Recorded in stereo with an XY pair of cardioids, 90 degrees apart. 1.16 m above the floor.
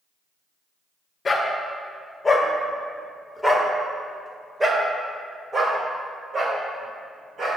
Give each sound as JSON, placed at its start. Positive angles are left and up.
{"t": 1.2, "sound": "a dog barking", "azimuth_deg": 35, "distance_m": 1.9}